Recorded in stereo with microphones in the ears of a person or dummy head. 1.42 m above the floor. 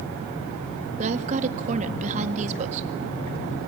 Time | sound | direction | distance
1.0 | a woman speaking | 40° right (ahead or behind) | 1.8 m